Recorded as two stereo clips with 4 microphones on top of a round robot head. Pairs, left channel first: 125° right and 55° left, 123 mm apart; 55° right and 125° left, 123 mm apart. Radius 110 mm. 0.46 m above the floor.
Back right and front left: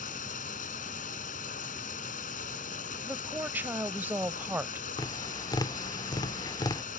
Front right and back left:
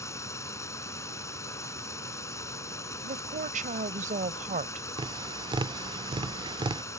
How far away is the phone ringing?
No phone ringing in this recording.